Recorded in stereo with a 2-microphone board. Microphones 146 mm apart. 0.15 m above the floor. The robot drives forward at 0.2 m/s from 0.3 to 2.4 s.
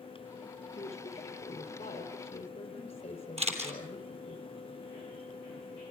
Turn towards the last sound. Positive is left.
turn(degrees=-50)  # may be behind; listen again after turning